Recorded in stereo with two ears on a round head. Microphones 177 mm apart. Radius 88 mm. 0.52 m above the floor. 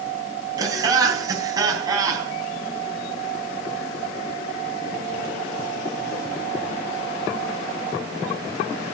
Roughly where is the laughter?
Centre.